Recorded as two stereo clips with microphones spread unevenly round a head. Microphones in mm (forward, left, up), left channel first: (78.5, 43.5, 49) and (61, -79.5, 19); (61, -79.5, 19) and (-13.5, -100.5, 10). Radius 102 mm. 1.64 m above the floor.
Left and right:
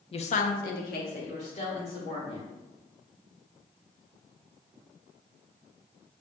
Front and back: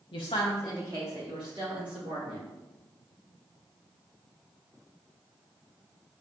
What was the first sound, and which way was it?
A woman speaking, 40° left.